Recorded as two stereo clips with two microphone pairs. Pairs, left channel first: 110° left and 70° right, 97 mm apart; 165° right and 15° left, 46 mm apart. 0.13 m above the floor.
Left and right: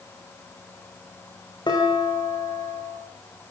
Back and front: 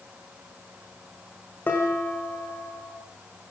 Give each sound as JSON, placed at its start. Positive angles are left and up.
{"t": 1.7, "sound": "dishes clattering", "azimuth_deg": 150, "distance_m": 7.0}